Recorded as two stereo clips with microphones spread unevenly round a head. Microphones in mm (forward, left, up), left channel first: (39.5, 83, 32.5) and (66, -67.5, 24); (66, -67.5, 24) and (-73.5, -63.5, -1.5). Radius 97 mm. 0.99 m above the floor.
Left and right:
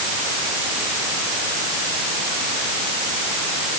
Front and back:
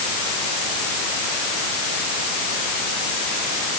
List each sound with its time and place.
Only background noise.